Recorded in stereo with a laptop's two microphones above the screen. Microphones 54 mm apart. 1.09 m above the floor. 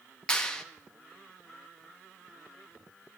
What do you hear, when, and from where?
0.3 s a clap: 15° left (ahead or behind), 1.2 m